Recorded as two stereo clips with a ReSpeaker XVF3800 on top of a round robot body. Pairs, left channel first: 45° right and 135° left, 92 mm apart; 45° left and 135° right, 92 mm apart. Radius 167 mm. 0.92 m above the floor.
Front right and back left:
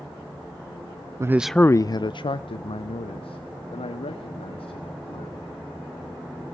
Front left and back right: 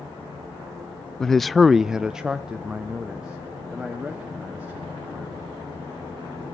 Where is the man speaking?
125° left, 0.5 m; by 5.4 s 55° right, 3 m.